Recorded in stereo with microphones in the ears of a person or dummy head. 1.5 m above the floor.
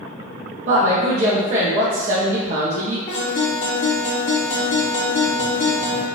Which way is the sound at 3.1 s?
40° left (ahead or behind).